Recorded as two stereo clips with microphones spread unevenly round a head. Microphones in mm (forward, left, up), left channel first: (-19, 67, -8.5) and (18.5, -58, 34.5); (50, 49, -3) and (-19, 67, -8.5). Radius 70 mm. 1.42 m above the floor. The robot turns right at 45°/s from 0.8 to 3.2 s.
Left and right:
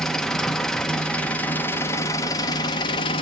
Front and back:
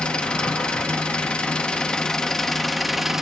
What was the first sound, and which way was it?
An engine running, 35° right.